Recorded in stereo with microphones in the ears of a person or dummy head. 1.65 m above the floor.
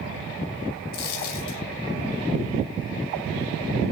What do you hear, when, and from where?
0.9 s a dropped coin: 55° left (ahead or behind), 2.5 m